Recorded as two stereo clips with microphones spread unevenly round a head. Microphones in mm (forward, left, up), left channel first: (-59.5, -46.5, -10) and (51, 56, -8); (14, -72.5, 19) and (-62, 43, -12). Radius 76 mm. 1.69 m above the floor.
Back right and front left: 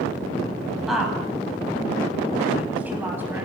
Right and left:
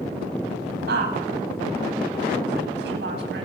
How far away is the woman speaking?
About 10 m.